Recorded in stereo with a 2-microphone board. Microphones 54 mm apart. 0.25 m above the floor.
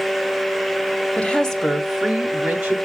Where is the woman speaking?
20° left (ahead or behind), 0.9 m; by 2.8 s 20° right (ahead or behind), 1.3 m.